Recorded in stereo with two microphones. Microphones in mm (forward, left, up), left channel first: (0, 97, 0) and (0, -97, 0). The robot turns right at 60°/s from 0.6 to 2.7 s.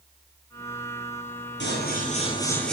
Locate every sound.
1.6 s scissors: 110° left, 7.5 m; by 2.7 s 175° left, 7.5 m